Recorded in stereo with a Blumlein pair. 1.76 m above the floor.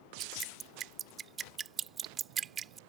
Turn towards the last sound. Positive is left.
turn(degrees=-25)